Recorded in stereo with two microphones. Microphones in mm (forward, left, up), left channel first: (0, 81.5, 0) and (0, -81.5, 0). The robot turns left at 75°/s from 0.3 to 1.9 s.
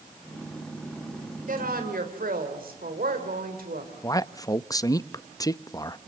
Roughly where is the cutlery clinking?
I don't hear cutlery clinking.